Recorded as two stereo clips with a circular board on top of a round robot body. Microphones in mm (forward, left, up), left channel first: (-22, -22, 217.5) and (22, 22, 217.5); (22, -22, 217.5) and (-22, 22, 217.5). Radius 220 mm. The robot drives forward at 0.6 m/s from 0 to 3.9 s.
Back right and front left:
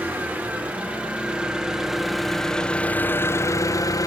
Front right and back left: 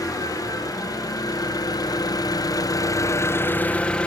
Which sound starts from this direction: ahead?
An engine running, at 0.0 s.